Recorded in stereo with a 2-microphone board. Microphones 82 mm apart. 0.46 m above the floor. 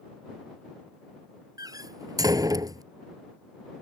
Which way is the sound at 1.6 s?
50° right (ahead or behind).